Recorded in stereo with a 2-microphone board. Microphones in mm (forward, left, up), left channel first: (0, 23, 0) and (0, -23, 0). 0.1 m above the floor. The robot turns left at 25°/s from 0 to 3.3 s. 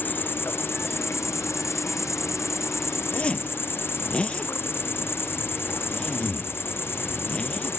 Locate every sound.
0.0 s an insect: 140° left; by 7.8 s 55° left
3.1 s a zipper: 30° left (ahead or behind); by 7.8 s 25° left (ahead or behind)